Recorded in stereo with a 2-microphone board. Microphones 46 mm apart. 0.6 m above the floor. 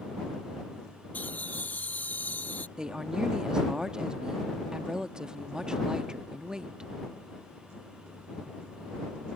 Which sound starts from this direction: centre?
A woman speaking, at 2.8 s.